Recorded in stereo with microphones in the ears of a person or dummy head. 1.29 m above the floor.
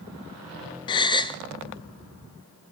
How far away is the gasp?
About 0.5 m.